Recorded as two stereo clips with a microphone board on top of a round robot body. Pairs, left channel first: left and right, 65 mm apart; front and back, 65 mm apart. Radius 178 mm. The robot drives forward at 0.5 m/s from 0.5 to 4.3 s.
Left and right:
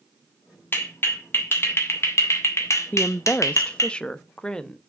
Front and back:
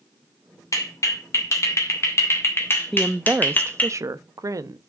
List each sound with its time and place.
0.7 s a clap: 35° left, 3 m; by 3.9 s 65° left, 1.8 m
2.9 s a woman speaking: 90° left, 0.5 m; by 4.8 s 165° left, 0.9 m